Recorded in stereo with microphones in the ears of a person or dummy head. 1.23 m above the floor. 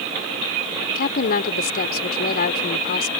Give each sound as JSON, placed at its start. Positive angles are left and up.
{"t": 0.9, "sound": "a woman speaking", "side_deg": 60}